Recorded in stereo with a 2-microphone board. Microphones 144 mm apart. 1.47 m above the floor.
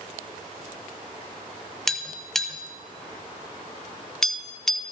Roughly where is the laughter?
I don't hear laughter.